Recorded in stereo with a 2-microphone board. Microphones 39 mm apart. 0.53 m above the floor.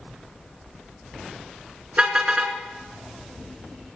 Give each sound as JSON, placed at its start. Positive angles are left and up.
{"t": 2.0, "sound": "a car horn", "side_deg": -30, "distance_m": 3.0}